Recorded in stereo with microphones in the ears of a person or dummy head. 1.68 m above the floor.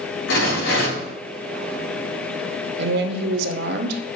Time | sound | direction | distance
0.3 | a rattle | 70° left (ahead or behind) | 3 m
2.8 | a woman speaking | 65° right (ahead or behind) | 0.9 m